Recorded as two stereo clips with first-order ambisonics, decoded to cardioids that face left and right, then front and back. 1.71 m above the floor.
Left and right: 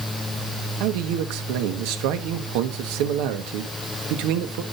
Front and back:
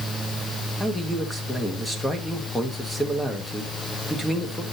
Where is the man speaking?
85° right, 1.6 m.